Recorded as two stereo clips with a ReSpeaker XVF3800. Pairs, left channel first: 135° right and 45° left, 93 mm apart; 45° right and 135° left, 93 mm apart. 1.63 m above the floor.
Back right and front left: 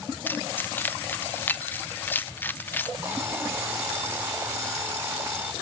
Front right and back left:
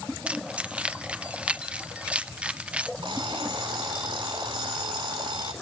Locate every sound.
0.3 s keys jangling: 170° right, 0.6 m
3.0 s an alarm clock: 115° left, 3.5 m